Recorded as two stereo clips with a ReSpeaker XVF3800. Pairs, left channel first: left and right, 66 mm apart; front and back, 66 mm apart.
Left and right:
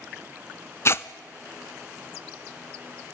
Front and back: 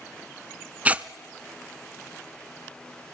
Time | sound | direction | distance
0.8 | tearing paper | 120° left | 0.5 m